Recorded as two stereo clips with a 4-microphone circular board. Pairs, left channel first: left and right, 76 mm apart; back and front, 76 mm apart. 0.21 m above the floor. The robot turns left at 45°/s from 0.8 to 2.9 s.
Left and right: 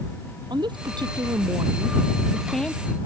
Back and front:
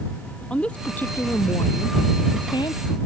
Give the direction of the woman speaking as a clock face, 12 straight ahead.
3 o'clock.